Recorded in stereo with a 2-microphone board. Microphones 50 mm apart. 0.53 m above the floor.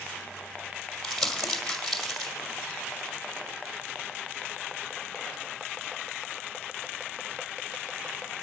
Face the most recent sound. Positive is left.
turn(degrees=5)  # may be behind; listen again after turning